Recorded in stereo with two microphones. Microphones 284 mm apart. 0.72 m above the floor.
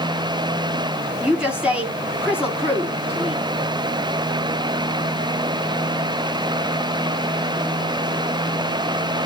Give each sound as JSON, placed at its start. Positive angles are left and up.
{"t": 1.2, "sound": "a woman speaking", "side_deg": -5, "distance_m": 6.5}